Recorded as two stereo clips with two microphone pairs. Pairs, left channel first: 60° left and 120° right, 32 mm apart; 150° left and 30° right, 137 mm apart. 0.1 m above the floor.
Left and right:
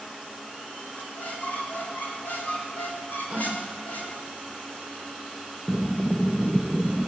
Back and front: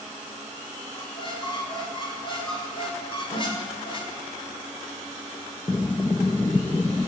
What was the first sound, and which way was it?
A squeak, 95° left.